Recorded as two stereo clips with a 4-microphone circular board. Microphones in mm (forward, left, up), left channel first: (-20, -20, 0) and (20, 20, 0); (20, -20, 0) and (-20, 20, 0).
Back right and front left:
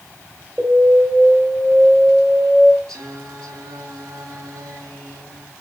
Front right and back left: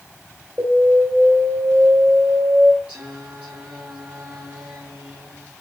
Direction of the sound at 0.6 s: 110° left.